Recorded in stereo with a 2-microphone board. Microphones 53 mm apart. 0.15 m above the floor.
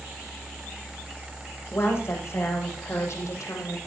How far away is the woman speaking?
About 7.5 m.